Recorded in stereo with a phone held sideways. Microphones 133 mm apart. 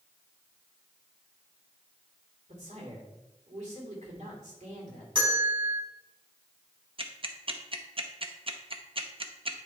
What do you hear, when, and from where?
2.5 s a man speaking: 65° right (ahead or behind), 2.5 m
5.2 s a bell: 40° right (ahead or behind), 3.5 m
7.0 s ticking: 45° right (ahead or behind), 0.7 m